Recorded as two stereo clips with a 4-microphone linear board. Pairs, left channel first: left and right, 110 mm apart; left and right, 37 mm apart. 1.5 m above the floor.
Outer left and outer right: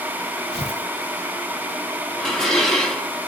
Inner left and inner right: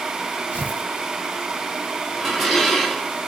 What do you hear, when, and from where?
0.5 s tearing paper: 70° left (ahead or behind), 2.5 m
2.2 s dishes clattering: 5° left (ahead or behind), 1.6 m